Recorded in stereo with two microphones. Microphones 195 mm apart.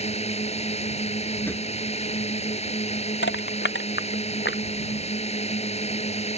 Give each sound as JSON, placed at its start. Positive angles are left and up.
{"t": 0.0, "sound": "a drone", "side_deg": 35}
{"t": 1.5, "sound": "a drawer", "side_deg": 10}
{"t": 3.2, "sound": "crushing", "side_deg": 85}